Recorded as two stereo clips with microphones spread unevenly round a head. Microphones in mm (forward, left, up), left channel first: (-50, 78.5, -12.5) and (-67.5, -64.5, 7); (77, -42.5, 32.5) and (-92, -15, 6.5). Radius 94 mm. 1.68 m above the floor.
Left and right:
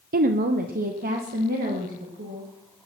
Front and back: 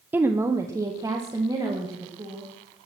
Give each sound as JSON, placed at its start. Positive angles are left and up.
{"t": 0.1, "sound": "a woman speaking", "azimuth_deg": -105, "distance_m": 0.7}